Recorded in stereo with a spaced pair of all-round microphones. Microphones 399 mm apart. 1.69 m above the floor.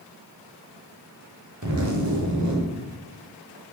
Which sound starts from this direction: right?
A zipper, at 1.6 s.